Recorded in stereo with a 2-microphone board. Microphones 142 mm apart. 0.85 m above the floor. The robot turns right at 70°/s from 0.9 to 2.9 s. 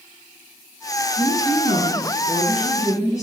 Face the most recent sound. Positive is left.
turn(degrees=155)